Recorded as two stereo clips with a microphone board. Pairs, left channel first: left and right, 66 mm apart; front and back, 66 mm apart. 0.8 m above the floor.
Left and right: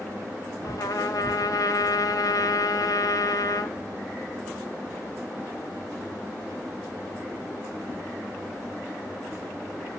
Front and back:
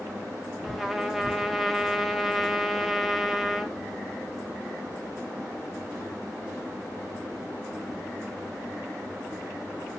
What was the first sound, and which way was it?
A trumpet, 95° left.